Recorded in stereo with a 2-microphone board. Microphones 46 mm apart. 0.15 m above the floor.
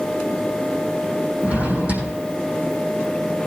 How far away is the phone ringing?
I don't hear a phone ringing.